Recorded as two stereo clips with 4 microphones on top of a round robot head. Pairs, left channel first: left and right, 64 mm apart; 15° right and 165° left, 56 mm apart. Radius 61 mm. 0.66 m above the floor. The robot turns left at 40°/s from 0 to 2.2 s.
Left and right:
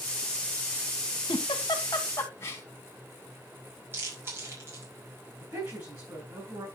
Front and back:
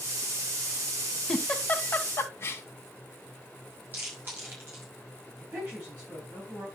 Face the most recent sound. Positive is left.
turn(degrees=-130)